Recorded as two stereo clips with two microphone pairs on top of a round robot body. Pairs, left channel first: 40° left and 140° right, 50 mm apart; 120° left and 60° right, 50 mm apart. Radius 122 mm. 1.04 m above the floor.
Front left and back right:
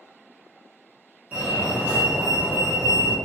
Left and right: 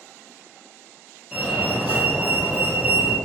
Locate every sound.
1.3 s a fire alarm: 135° right, 1.7 m